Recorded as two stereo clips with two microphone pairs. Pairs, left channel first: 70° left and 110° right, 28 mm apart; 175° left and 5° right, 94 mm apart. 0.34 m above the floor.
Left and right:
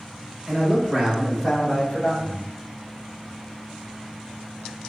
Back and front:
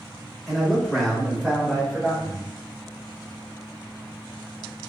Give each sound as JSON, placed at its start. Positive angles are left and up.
{"t": 0.5, "sound": "a man speaking", "azimuth_deg": -100, "distance_m": 1.0}